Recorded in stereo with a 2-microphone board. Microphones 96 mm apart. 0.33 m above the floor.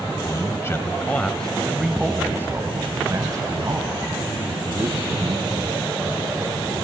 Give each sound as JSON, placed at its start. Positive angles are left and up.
{"t": 0.2, "sound": "a man speaking", "side_deg": 35, "distance_m": 1.6}